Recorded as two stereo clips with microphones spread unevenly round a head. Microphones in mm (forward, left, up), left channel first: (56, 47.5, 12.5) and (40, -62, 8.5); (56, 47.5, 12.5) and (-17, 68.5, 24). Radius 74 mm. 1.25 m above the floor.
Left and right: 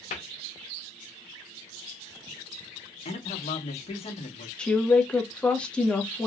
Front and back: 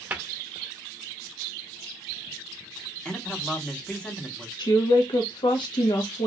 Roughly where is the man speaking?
Ahead left.